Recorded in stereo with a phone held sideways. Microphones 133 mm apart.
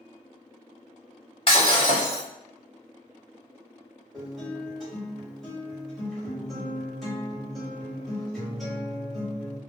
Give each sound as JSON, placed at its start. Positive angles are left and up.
{"t": 1.5, "sound": "breaking glass", "side_deg": 40, "distance_m": 1.1}
{"t": 4.1, "sound": "a guitar", "side_deg": 0, "distance_m": 1.7}